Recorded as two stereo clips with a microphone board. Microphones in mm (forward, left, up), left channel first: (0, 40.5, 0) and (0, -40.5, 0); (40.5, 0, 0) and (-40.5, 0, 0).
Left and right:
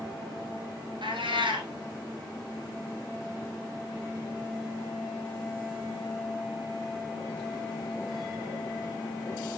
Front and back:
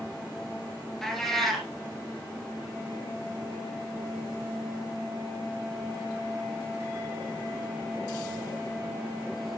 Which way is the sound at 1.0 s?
90° right.